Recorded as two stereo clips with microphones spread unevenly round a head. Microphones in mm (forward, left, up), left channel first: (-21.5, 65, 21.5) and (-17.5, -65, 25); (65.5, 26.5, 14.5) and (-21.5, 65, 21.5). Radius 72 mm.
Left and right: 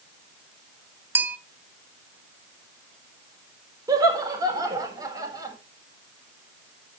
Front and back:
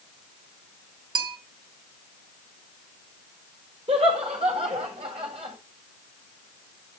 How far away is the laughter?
About 4.5 m.